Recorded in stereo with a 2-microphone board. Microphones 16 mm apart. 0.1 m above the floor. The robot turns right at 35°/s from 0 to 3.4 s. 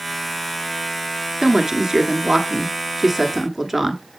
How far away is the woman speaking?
About 1.2 m.